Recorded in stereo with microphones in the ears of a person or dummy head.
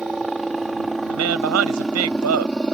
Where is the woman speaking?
80° right.